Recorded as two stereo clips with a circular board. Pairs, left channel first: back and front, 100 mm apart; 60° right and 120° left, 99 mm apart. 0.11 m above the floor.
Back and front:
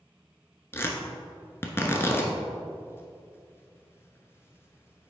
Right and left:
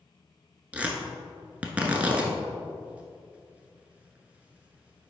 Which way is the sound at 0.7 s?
175° left.